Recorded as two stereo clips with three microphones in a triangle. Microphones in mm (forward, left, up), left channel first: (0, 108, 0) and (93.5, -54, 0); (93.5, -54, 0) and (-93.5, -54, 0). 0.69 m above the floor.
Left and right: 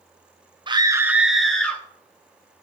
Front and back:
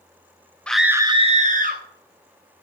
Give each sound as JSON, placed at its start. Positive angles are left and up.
{"t": 0.7, "sound": "a scream", "azimuth_deg": -80, "distance_m": 0.6}